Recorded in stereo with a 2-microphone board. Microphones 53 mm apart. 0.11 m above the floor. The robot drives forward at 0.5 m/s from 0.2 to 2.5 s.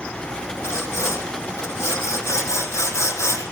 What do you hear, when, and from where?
0.6 s sawing: 70° left (ahead or behind), 3.5 m; by 3.4 s 75° left (ahead or behind), 3.5 m